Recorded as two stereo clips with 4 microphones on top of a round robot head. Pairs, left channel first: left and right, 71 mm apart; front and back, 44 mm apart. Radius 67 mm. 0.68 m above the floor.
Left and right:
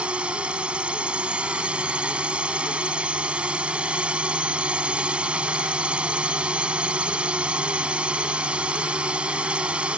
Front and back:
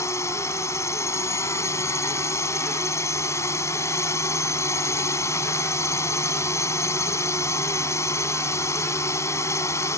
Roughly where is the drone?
Ahead.